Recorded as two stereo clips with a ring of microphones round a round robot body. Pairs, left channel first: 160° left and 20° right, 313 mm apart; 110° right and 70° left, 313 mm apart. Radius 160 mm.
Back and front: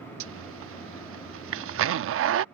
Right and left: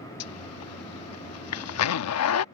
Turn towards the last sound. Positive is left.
turn(degrees=-70)